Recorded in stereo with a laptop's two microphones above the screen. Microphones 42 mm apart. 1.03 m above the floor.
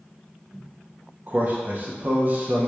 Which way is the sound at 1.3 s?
40° right (ahead or behind).